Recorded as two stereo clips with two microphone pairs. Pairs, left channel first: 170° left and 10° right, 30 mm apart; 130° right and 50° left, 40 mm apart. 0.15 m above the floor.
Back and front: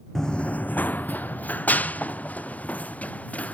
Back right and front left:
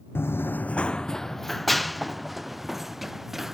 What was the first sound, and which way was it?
Running footsteps, 120° right.